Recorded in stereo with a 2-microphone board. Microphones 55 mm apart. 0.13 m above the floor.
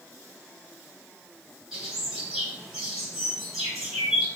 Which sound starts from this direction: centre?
A bird, at 1.7 s.